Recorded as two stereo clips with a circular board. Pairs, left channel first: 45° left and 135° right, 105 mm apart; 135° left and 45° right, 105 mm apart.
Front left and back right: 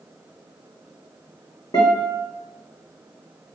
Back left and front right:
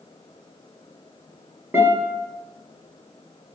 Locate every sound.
1.7 s a guitar: 20° left, 1.3 m